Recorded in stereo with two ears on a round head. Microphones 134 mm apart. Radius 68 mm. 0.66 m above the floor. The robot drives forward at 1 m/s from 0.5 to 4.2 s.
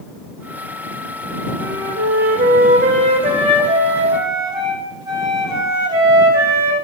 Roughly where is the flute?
Right.